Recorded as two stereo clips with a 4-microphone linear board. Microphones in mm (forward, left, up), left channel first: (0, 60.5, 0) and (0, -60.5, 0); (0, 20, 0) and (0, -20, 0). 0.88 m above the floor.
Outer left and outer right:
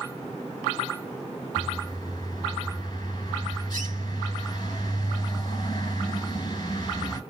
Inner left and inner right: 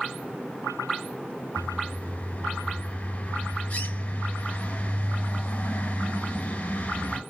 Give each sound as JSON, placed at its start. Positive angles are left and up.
{"t": 1.6, "sound": "a bird", "side_deg": 35, "distance_m": 2.0}